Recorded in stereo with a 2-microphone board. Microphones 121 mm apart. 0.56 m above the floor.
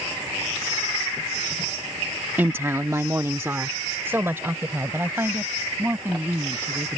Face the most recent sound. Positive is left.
turn(degrees=-15)  # may be behind; listen again after turning